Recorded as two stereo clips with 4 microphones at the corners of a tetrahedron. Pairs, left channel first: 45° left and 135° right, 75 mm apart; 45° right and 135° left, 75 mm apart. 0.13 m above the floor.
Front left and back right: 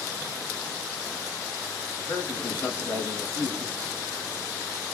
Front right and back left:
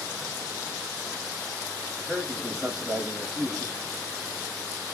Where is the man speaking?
75° left, 1.3 m.